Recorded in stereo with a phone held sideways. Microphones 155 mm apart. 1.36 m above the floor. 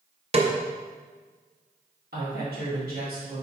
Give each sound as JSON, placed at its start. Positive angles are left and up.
{"t": 0.3, "sound": "a snare drum", "side_deg": -40, "distance_m": 0.9}
{"t": 2.1, "sound": "a woman speaking", "side_deg": -80, "distance_m": 2.5}